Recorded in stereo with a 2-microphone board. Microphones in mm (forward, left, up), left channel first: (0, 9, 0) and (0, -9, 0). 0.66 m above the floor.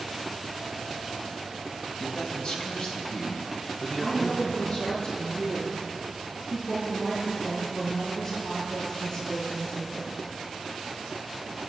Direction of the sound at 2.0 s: 50° left (ahead or behind).